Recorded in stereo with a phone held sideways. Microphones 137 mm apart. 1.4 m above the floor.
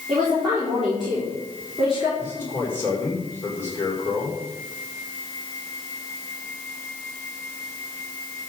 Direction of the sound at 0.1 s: 5° right (ahead or behind).